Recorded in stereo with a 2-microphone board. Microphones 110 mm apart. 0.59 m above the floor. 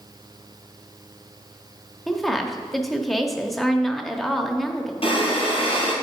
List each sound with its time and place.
2.1 s a woman speaking: centre (ahead or behind), 0.8 m
5.0 s breathing: 55° left (ahead or behind), 3 m